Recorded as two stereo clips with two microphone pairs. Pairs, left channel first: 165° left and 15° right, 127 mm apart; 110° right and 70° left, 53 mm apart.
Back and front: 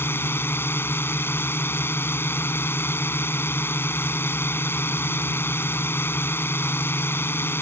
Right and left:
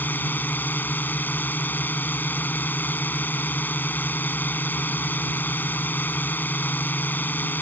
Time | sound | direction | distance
0.0 | a drone | 135° right | ?